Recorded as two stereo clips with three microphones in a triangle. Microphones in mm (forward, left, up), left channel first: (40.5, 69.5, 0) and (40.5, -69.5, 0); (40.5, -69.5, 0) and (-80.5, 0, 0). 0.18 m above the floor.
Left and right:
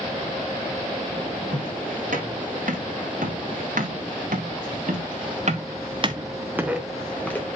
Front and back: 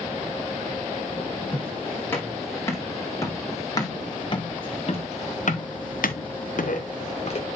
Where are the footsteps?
105° right, 6 m; by 7.5 s 15° left, 2.5 m.